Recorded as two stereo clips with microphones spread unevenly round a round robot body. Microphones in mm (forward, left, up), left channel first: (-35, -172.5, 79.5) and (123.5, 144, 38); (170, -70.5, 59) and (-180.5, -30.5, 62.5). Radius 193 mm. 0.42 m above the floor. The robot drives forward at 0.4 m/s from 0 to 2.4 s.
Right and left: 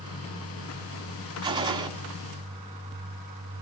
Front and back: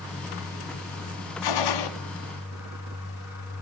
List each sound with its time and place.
1.4 s a gunshot: 15° right, 3 m